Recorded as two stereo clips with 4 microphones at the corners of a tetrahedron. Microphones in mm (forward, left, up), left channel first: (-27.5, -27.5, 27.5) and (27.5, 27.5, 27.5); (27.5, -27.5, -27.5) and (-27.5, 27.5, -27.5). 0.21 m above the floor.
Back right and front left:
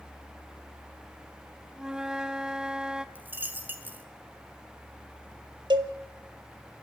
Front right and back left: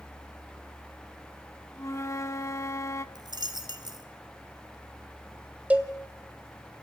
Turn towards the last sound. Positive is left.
turn(degrees=65)